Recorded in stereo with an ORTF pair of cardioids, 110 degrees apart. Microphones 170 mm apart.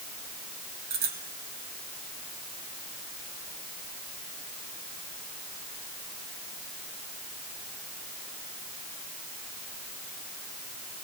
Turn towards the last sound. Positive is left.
turn(degrees=-65)